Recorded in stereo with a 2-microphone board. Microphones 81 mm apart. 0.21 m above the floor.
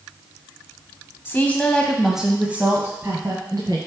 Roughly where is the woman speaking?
Left.